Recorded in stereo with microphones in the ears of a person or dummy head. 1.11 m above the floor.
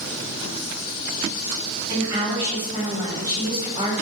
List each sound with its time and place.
1.9 s a woman speaking: 25° right (ahead or behind), 1.9 m